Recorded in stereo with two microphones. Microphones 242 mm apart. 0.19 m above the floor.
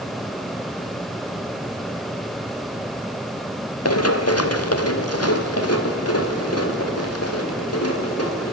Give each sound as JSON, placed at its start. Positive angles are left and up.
{"t": 3.9, "sound": "running footsteps", "side_deg": 85, "distance_m": 1.9}